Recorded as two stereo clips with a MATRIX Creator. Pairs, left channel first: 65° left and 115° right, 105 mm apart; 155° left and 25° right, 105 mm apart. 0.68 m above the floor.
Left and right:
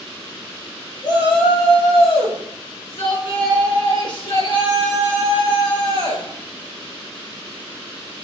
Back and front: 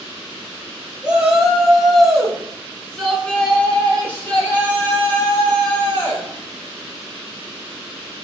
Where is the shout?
55° left, 1.5 m; by 6.2 s 90° left, 4 m.